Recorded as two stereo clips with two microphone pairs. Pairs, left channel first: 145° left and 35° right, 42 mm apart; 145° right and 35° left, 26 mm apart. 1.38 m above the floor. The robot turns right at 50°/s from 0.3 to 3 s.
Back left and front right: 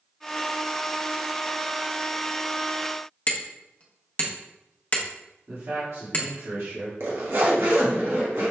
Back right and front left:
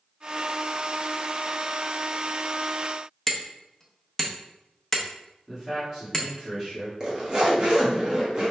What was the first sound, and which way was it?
Hammering, 155° left.